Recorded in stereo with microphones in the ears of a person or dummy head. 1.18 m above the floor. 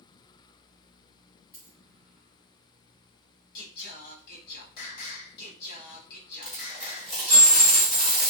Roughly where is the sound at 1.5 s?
Centre.